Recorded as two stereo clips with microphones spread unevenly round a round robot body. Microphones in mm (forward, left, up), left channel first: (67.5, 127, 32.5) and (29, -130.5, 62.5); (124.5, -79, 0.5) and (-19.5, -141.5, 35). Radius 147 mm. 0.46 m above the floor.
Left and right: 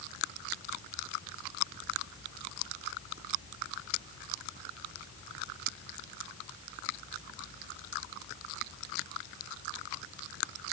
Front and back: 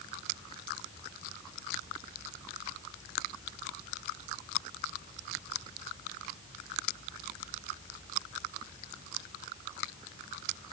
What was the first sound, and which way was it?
Only background noise.